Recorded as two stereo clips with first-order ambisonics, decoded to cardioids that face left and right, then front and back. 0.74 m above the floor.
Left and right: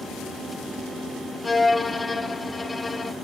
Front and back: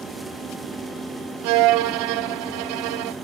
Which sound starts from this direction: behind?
A violin, at 1.4 s.